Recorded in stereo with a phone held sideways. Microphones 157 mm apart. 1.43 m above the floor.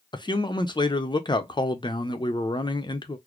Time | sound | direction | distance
0.1 | a man speaking | 30° left (ahead or behind) | 0.7 m